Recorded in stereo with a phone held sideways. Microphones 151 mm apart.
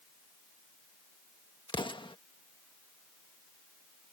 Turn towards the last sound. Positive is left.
turn(degrees=35)  # may be behind; listen again after turning